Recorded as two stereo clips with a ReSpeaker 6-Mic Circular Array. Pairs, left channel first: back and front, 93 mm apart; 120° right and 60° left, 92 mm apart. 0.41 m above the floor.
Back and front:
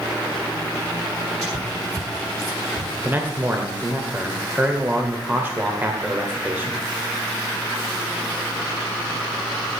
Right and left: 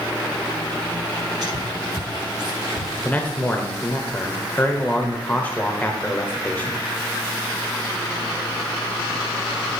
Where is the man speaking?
60° right, 1.4 m.